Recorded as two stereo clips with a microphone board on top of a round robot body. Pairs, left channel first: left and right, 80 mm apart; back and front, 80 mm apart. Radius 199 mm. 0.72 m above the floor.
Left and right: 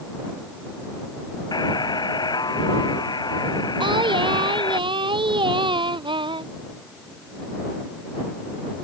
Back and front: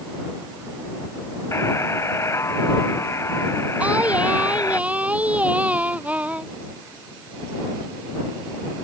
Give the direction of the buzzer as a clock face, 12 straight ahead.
8 o'clock.